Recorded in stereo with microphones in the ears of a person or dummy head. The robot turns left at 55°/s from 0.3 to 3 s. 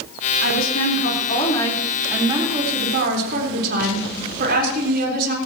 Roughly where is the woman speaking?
Left.